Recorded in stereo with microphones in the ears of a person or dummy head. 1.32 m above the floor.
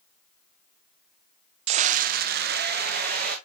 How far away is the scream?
About 0.6 m.